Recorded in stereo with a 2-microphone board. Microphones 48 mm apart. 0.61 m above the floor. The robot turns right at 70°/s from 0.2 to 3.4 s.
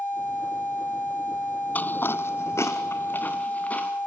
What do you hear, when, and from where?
1.8 s footsteps: 35° left (ahead or behind), 0.7 m